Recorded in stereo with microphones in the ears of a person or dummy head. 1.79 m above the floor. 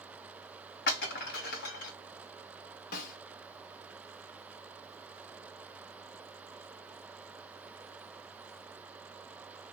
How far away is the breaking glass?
About 1.7 m.